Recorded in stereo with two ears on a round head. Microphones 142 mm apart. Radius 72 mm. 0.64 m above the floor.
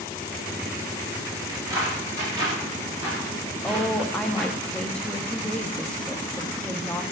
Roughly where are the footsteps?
Right.